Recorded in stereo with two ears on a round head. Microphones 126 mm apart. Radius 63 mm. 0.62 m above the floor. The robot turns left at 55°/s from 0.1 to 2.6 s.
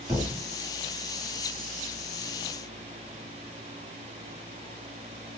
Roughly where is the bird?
No bird in this recording.